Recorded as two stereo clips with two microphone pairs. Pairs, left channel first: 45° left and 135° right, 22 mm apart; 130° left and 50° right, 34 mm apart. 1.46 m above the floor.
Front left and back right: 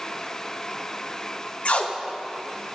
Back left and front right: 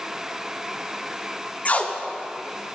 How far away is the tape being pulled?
About 0.6 m.